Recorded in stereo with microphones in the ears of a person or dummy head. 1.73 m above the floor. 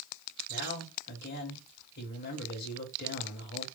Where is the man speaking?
55° left (ahead or behind), 2 m.